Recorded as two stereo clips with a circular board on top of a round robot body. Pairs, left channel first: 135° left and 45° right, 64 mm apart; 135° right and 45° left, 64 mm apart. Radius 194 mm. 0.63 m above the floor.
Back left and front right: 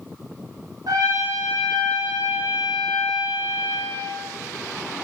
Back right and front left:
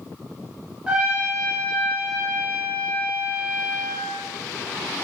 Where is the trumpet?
35° right, 1.0 m.